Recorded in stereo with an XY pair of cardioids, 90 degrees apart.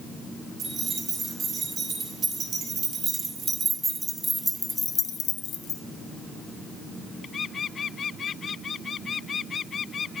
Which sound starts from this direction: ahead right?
Keys jangling, at 0.6 s.